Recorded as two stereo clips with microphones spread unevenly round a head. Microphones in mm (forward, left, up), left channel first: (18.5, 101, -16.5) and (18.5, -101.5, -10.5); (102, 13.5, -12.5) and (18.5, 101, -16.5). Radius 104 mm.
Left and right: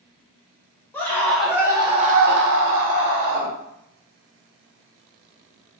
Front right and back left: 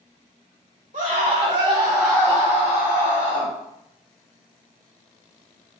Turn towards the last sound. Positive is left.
turn(degrees=-55)